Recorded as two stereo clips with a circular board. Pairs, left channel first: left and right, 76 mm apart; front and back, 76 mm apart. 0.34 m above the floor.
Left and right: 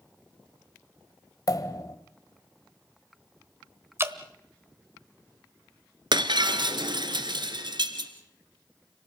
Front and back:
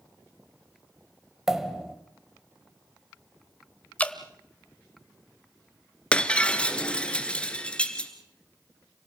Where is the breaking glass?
75° right, 1.6 m.